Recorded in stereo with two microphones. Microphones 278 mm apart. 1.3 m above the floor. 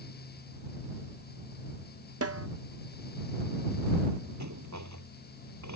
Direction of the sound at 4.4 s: 85° right.